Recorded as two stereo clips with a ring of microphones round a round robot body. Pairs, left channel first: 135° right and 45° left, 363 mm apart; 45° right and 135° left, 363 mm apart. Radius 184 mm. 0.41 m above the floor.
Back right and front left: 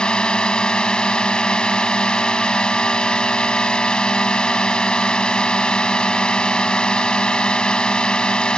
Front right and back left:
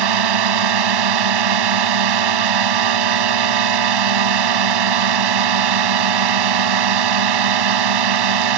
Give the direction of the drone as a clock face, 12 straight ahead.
7 o'clock.